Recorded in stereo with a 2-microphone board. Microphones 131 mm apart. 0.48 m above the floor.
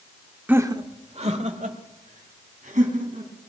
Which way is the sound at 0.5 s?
10° right (ahead or behind).